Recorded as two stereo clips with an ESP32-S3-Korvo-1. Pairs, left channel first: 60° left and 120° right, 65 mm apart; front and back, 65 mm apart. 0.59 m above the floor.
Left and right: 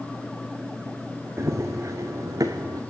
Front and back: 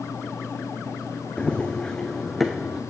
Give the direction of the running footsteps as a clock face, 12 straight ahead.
2 o'clock.